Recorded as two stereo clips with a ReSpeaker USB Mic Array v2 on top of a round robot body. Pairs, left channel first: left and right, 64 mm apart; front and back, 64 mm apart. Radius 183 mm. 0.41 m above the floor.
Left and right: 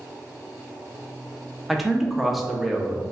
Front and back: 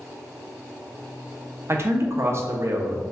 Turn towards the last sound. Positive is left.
turn(degrees=-175)